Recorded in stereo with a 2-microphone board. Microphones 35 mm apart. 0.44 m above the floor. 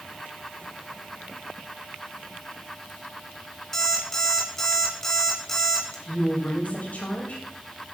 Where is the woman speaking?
50° left (ahead or behind), 2.5 m.